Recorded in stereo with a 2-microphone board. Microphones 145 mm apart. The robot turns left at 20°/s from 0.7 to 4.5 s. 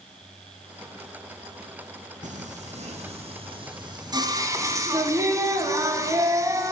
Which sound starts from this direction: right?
Singing, at 2.2 s.